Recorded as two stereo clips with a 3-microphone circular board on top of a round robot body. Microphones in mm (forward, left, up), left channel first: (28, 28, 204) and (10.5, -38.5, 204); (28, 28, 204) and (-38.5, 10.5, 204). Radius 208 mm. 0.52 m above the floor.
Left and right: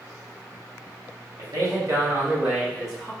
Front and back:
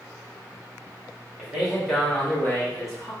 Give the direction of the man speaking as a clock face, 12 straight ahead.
3 o'clock.